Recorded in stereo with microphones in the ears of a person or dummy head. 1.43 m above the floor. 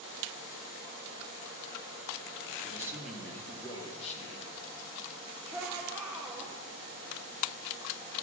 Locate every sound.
2.6 s a man speaking: 20° right (ahead or behind), 2 m; by 4.6 s 50° left (ahead or behind), 2.5 m
5.5 s a shout: centre (ahead or behind), 2.5 m